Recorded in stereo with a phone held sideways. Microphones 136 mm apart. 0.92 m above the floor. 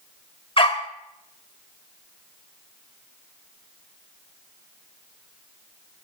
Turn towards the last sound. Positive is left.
turn(degrees=40)  # may be behind; listen again after turning